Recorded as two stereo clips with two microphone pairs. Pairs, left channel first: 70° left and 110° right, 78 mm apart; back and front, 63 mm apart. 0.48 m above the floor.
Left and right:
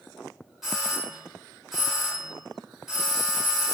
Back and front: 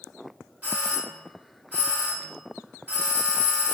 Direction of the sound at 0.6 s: 20° right.